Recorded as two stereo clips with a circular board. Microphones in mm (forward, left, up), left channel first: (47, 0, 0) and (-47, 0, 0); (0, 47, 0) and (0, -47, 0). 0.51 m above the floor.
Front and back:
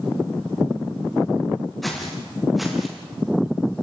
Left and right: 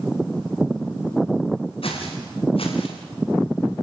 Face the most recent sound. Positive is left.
turn(degrees=90)